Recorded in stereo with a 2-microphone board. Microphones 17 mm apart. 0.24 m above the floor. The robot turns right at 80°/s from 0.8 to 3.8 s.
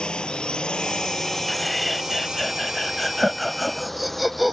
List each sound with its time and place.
0.0 s a drone: 75° left (ahead or behind); by 4.5 s 20° left (ahead or behind)
1.5 s laughter: 10° left (ahead or behind); by 4.5 s 10° right (ahead or behind)